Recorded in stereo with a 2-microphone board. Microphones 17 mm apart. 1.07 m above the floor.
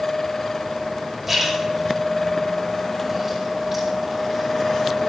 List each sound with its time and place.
1.3 s a splash: 10° right (ahead or behind), 6 m